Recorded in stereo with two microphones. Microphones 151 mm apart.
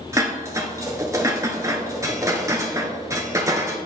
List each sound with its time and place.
0.1 s dishes clattering: 20° right (ahead or behind), 1.0 m